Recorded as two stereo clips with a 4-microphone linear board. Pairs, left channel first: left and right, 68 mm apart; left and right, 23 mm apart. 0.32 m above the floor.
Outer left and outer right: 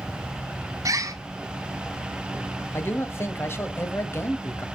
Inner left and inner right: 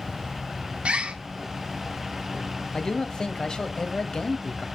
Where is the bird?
50° right (ahead or behind), 2.5 m.